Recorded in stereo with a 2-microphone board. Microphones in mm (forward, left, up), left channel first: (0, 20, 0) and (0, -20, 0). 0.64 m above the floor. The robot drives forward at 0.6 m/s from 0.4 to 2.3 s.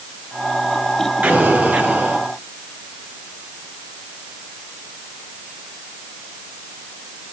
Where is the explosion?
40° right (ahead or behind), 5.5 m; by 2.2 s 45° right (ahead or behind), 5 m.